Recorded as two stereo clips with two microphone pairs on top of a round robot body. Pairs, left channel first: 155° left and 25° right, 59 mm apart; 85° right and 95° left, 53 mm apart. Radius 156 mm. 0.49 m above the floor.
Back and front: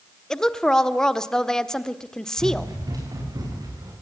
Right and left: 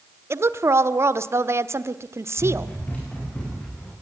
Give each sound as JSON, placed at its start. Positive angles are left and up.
{"t": 0.3, "sound": "a woman speaking", "azimuth_deg": 75, "distance_m": 1.5}
{"t": 2.4, "sound": "running footsteps", "azimuth_deg": -20, "distance_m": 9.5}